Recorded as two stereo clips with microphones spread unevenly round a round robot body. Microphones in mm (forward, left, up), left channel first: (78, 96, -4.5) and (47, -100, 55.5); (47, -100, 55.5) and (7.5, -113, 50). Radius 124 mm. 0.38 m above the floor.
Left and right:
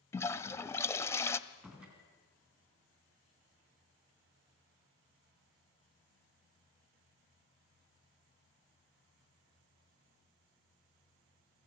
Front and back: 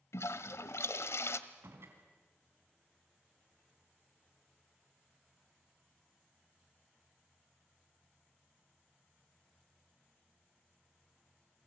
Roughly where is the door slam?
Behind.